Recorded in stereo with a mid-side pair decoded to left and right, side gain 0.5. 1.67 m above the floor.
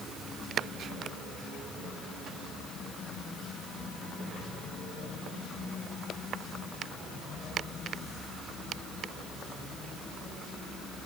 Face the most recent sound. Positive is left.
No sound to turn to.